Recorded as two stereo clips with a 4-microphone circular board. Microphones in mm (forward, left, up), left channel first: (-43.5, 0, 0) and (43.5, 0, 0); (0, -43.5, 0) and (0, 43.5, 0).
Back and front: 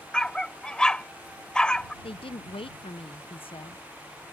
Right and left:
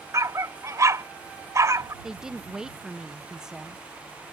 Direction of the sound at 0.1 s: 105° left.